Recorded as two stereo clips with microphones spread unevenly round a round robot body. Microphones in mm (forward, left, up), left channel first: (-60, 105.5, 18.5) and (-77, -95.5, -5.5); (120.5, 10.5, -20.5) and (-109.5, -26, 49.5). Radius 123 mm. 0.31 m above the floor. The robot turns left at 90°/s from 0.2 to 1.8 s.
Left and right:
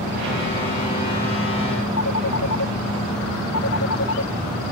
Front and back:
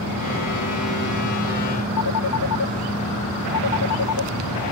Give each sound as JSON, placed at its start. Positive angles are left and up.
{"t": 2.0, "sound": "a phone ringing", "azimuth_deg": 40}